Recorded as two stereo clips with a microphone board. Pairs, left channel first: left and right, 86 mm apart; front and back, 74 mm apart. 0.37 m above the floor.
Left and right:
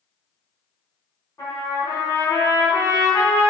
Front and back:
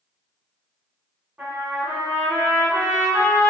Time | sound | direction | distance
1.4 | a trumpet | 120° left | 1.4 m